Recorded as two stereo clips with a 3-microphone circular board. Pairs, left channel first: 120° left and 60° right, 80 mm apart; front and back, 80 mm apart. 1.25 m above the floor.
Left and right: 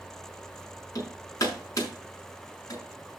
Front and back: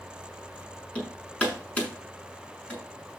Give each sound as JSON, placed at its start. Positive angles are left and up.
{"t": 0.9, "sound": "hammering", "azimuth_deg": 70, "distance_m": 6.5}